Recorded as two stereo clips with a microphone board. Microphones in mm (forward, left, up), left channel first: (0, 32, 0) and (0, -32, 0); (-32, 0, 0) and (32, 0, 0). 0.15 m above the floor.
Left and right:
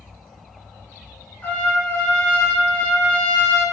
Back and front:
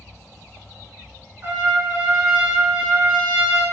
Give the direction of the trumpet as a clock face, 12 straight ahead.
11 o'clock.